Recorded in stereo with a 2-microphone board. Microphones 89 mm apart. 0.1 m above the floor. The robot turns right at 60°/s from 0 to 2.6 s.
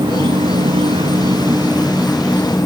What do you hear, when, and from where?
0.0 s an insect: 125° right, 3 m; by 2.7 s 30° left, 3 m